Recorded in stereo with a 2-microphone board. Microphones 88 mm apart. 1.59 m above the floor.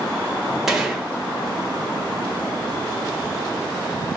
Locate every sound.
0.7 s a gunshot: 5° right (ahead or behind), 1.1 m